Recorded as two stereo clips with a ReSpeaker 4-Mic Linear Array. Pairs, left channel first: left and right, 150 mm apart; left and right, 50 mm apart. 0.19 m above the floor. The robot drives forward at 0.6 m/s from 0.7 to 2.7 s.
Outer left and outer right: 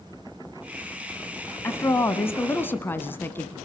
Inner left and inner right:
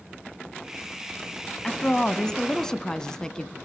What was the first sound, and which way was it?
A woman speaking, 20° left (ahead or behind).